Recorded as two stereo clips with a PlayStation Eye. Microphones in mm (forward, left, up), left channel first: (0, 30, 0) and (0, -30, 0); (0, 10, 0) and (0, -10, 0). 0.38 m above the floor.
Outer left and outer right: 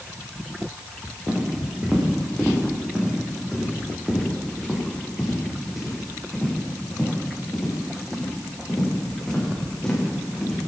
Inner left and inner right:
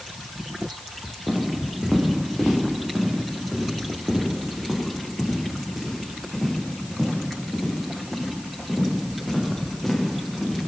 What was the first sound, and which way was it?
Footsteps, 15° right (ahead or behind).